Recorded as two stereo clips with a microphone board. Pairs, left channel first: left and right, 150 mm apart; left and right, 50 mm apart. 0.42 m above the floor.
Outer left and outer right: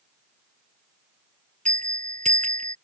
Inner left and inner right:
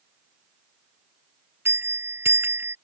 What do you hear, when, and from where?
1.6 s a bell: 55° right (ahead or behind)